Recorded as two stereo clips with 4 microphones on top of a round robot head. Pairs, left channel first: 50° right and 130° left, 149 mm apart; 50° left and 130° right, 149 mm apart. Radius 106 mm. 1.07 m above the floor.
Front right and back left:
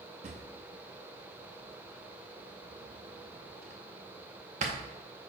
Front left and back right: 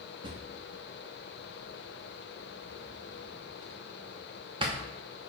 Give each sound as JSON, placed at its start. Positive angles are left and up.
{"t": 0.2, "sound": "a drawer", "azimuth_deg": 170, "distance_m": 0.6}